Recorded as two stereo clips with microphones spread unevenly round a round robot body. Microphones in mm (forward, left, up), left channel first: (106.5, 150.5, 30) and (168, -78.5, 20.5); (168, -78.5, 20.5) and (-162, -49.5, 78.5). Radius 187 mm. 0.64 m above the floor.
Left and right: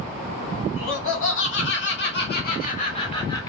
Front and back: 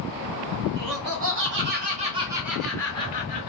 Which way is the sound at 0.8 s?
130° left.